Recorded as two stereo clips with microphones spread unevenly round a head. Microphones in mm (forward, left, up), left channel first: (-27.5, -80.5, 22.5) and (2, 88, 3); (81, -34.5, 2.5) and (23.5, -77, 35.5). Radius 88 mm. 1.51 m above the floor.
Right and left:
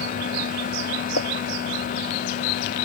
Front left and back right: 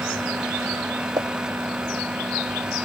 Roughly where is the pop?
Right.